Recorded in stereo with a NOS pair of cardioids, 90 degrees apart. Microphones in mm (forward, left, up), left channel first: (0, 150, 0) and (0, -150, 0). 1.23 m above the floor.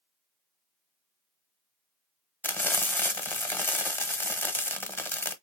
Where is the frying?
5° left, 0.9 m.